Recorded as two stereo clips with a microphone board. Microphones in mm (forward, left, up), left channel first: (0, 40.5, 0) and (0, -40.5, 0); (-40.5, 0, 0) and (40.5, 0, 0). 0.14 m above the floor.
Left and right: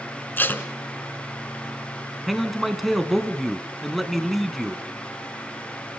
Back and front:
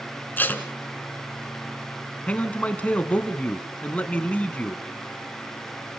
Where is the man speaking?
Straight behind, 1.4 m.